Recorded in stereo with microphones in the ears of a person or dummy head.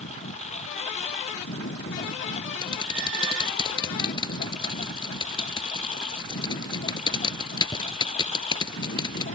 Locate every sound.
0.0 s a lawn mower: 35° left (ahead or behind)
2.6 s typing on a keyboard: 25° left (ahead or behind)